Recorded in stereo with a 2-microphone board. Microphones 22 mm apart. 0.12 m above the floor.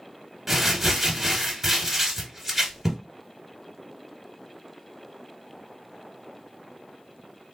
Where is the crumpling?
5° right (ahead or behind), 1.3 m.